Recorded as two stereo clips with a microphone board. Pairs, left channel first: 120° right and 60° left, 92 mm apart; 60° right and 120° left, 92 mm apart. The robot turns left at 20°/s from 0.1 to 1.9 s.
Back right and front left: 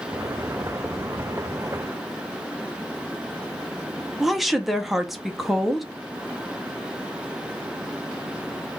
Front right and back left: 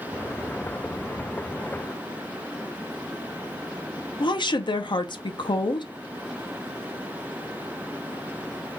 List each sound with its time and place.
4.2 s a woman speaking: 25° right, 0.5 m